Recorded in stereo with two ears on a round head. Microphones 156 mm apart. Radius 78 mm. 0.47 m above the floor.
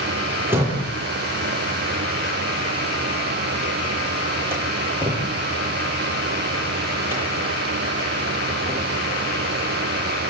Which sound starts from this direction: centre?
A door slam, at 0.5 s.